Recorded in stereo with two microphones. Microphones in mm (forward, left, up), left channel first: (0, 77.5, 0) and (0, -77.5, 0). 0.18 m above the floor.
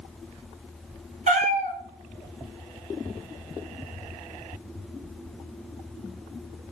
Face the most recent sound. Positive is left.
turn(degrees=-50)  # may be behind; listen again after turning